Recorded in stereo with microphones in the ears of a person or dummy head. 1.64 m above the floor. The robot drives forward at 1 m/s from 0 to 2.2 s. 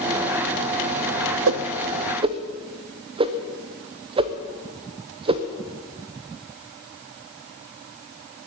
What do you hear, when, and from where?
1.5 s a whoosh: 70° right (ahead or behind), 0.6 m; by 5.4 s 30° right (ahead or behind), 1.0 m